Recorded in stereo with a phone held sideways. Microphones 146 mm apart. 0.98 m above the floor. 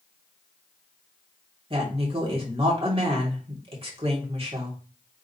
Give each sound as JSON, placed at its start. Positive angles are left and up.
{"t": 1.7, "sound": "a woman speaking", "side_deg": -40, "distance_m": 2.5}